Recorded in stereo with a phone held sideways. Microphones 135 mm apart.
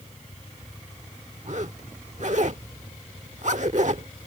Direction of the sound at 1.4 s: 60° right (ahead or behind).